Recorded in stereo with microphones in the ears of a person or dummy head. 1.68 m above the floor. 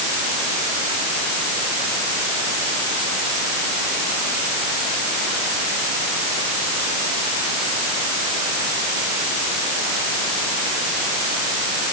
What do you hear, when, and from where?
Only background noise.